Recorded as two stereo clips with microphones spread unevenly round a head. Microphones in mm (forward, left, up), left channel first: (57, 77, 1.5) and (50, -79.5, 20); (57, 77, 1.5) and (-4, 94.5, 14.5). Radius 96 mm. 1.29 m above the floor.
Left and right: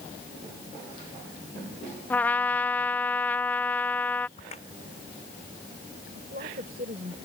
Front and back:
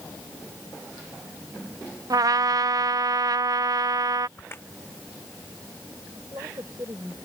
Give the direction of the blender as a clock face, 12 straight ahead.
I don't hear a blender.